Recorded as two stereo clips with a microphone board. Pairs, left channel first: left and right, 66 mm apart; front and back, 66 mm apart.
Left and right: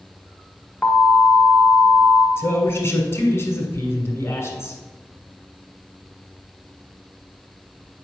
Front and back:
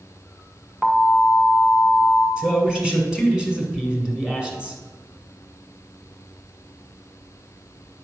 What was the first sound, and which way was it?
An alarm, 120° left.